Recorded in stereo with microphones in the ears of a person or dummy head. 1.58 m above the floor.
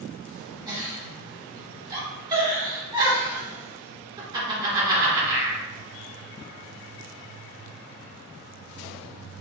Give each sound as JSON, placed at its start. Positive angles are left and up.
{"t": 0.7, "sound": "a giggle", "side_deg": -20, "distance_m": 1.7}